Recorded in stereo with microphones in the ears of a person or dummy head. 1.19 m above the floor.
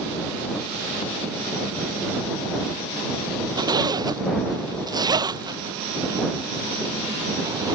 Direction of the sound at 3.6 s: 20° right (ahead or behind).